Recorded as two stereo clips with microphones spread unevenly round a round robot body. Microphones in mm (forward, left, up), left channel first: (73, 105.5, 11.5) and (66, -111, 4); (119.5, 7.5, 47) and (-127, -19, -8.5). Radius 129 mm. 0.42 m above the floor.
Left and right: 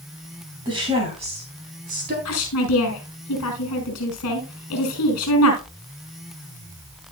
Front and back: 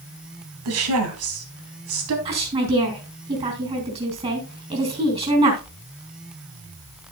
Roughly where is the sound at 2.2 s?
Behind left.